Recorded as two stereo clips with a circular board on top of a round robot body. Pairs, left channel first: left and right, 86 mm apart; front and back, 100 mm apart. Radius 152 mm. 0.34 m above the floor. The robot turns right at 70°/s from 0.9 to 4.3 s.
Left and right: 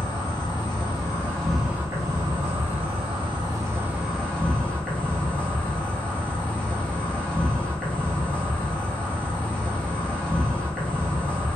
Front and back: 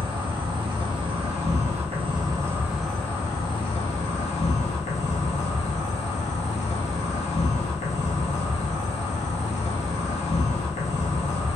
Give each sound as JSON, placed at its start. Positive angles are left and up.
{"t": 0.0, "sound": "an insect", "azimuth_deg": 130, "distance_m": 0.7}